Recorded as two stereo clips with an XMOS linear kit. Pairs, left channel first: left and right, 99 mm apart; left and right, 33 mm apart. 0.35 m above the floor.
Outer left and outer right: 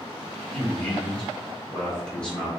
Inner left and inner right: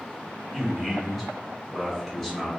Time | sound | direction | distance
0.5 | a man speaking | 10° left (ahead or behind) | 1.4 m